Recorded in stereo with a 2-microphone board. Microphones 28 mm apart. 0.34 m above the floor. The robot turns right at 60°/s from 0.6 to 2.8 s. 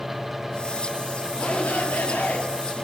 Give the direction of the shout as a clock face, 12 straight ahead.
10 o'clock.